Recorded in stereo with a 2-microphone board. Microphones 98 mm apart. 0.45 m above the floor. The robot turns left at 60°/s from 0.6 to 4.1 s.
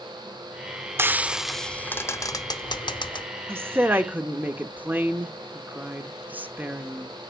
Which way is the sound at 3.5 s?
25° right (ahead or behind).